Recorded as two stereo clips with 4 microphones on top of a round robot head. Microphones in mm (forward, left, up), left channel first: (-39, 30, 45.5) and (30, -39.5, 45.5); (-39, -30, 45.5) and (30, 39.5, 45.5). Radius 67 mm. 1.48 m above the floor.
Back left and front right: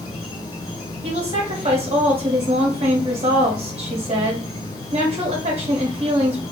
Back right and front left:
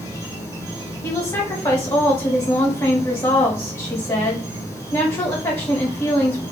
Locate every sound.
0.0 s an insect: 100° left, 0.9 m
1.0 s a woman speaking: 75° right, 1.7 m